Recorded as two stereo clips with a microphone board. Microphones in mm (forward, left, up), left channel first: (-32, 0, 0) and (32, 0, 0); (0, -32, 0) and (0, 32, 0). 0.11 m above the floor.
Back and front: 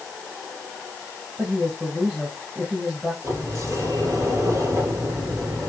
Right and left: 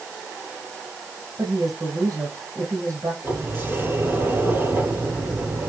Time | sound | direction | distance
1.4 | a woman speaking | 70° left | 3.5 m
3.2 | a sliding door | 35° left | 2.5 m